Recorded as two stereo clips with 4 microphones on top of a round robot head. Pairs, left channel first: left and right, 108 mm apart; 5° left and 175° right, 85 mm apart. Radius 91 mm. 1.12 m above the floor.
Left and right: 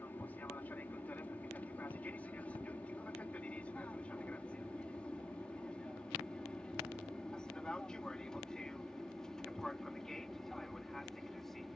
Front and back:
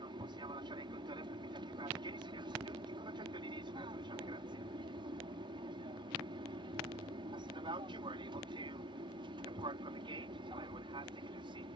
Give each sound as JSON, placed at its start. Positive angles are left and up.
{"t": 0.0, "sound": "an aircraft", "azimuth_deg": 165}